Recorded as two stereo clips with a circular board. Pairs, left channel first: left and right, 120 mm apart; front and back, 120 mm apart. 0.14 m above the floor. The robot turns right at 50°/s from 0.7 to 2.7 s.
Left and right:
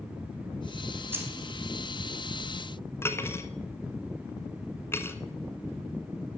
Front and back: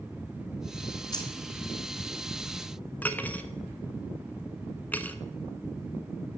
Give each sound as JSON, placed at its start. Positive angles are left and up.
{"t": 1.1, "sound": "keys jangling", "azimuth_deg": -30, "distance_m": 1.3}
{"t": 3.0, "sound": "cutlery clinking", "azimuth_deg": 55, "distance_m": 0.7}